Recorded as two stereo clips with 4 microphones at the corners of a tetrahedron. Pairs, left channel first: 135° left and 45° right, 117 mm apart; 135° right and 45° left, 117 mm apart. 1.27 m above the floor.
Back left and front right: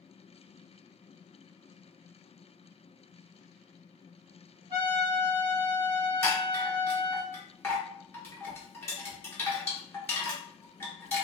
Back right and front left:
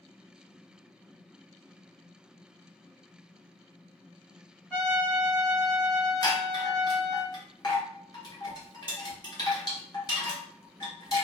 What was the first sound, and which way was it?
A trumpet, 65° right.